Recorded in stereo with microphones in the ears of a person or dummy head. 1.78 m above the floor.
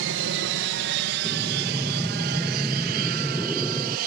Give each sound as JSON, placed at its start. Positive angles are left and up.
{"t": 0.0, "sound": "an aircraft", "side_deg": -65}
{"t": 1.2, "sound": "breathing", "side_deg": 5}